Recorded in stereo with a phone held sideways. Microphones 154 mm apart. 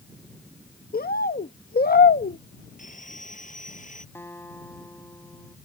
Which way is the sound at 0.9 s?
80° left.